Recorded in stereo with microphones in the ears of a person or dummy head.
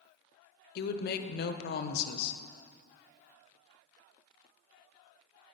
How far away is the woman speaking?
About 0.6 m.